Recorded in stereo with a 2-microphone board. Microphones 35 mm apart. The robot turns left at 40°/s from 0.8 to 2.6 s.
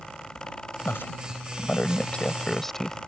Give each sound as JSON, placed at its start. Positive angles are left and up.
{"t": 0.8, "sound": "a woman speaking", "side_deg": 80}